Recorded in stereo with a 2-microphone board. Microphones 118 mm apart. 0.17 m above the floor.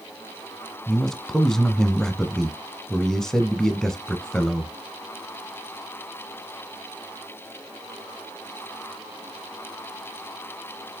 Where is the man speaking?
5° left (ahead or behind), 1.2 m.